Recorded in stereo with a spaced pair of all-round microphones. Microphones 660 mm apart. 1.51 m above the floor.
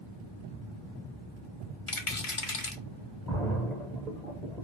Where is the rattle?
50° left (ahead or behind), 0.9 m.